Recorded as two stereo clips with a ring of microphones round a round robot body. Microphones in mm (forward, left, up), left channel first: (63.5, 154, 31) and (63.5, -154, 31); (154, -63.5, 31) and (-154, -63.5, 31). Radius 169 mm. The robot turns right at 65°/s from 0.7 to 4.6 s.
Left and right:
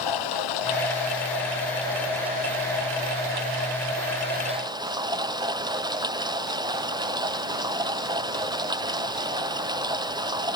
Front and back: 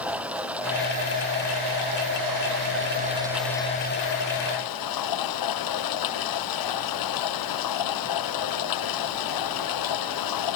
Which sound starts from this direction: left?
Running water, at 0.0 s.